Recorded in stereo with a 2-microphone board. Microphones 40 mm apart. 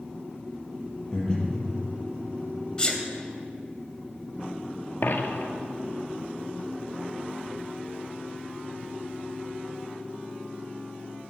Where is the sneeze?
20° left (ahead or behind), 2 m.